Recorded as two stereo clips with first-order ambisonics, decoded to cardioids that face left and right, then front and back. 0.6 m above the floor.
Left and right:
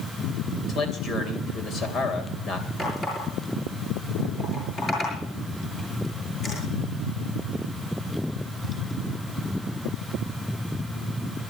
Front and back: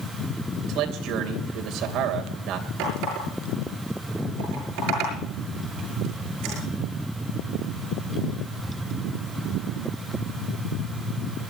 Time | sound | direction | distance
0.7 | a man speaking | 145° left | 2.5 m
2.8 | a running tap | 160° left | 7 m